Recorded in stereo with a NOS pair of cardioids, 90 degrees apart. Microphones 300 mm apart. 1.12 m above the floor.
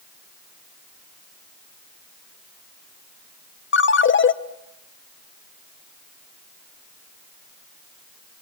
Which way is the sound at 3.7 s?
40° left.